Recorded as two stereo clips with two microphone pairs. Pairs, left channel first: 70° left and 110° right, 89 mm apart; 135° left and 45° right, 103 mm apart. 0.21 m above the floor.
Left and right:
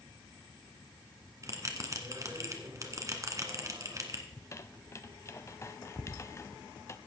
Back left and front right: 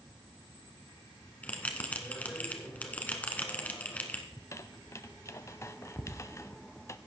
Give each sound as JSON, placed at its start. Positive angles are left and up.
{"t": 1.4, "sound": "a bell", "azimuth_deg": -155, "distance_m": 1.5}
{"t": 4.3, "sound": "a squeak", "azimuth_deg": 95, "distance_m": 0.5}